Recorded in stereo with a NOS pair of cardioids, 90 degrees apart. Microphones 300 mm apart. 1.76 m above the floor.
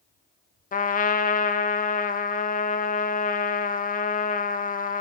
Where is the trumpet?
25° left, 0.6 m.